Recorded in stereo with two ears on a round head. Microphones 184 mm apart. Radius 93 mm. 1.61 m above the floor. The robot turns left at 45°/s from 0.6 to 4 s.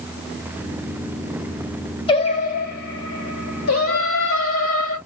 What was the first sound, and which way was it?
Singing, 155° left.